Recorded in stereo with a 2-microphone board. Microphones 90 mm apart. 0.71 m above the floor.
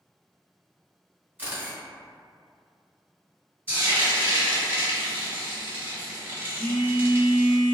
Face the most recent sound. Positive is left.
turn(degrees=-30)  # may be behind; listen again after turning